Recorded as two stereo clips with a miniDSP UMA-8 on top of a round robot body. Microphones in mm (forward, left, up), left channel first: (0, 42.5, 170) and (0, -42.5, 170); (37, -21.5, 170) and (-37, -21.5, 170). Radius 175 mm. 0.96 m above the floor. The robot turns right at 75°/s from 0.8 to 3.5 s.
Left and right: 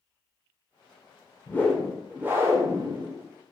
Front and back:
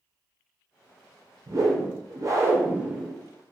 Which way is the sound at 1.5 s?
150° left.